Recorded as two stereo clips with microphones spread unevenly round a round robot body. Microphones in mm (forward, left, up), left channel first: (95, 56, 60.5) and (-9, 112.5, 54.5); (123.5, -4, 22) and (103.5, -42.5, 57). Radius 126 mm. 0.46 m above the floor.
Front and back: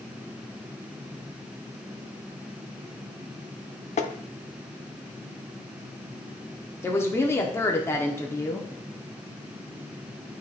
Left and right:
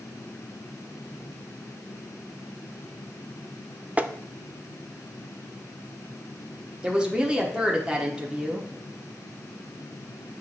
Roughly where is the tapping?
Ahead right.